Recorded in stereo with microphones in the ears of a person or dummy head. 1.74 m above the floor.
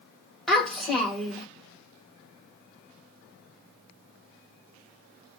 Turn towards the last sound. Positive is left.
turn(degrees=5)  # may be behind; listen again after turning